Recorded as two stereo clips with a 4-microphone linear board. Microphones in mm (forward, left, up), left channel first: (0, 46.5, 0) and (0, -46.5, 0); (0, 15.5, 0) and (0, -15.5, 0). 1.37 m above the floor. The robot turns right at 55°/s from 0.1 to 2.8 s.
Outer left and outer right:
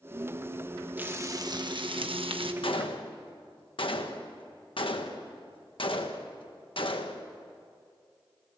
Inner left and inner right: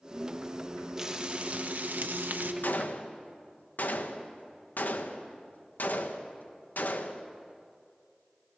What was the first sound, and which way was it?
Frying, 160° right.